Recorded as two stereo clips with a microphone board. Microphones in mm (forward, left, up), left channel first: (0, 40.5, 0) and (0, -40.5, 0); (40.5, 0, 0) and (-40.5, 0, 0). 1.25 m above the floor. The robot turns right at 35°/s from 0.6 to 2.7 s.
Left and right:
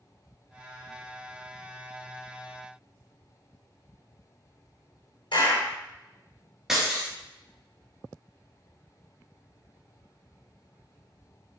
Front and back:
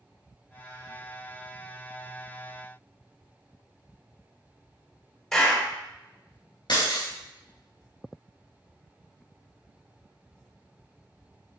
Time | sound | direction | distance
5.3 | a clap | 85° left | 3.5 m
6.7 | breaking glass | 5° right | 3 m